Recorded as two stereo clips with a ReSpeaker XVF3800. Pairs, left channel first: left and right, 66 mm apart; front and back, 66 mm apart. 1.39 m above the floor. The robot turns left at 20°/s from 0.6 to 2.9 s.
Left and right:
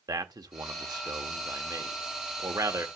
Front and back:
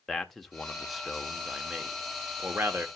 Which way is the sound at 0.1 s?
85° right.